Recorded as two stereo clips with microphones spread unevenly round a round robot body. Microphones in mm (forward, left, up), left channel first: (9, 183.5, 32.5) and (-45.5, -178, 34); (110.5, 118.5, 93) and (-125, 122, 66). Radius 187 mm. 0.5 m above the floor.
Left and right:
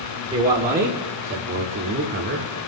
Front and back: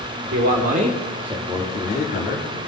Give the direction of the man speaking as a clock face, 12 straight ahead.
5 o'clock.